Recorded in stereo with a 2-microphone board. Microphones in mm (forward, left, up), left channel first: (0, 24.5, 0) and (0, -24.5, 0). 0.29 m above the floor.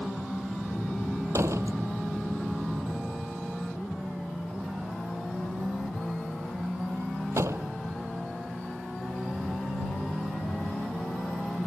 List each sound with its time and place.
1.3 s a door slam: 70° right (ahead or behind)